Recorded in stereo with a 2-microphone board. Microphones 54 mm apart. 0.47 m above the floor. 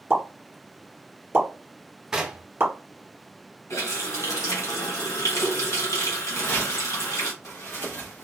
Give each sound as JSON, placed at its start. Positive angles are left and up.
{"t": 0.1, "sound": "a pop", "side_deg": -40, "distance_m": 1.2}
{"t": 2.1, "sound": "knocking", "side_deg": -10, "distance_m": 0.7}
{"t": 3.7, "sound": "a running tap", "side_deg": 75, "distance_m": 2.0}
{"t": 6.3, "sound": "footsteps", "side_deg": 45, "distance_m": 1.5}